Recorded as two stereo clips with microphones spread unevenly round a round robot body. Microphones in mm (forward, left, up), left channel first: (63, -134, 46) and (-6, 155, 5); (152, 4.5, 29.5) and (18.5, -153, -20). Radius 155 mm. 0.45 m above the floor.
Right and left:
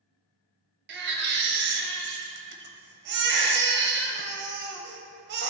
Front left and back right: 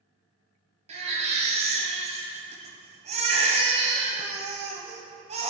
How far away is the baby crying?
About 0.7 m.